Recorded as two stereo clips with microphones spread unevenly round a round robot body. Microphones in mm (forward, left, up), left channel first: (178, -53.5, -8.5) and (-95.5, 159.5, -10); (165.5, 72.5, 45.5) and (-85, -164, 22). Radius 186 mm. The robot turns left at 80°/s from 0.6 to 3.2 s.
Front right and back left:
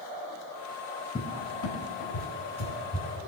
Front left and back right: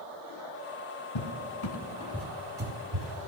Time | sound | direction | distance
1.1 | a cupboard door | 40° left | 1.4 m